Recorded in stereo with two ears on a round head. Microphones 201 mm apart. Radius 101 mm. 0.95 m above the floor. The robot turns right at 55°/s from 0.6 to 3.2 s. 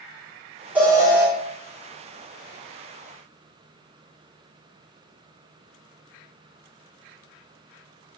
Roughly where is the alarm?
Centre.